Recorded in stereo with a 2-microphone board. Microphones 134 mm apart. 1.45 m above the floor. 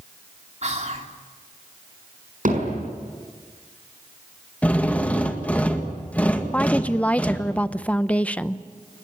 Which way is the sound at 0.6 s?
60° right (ahead or behind).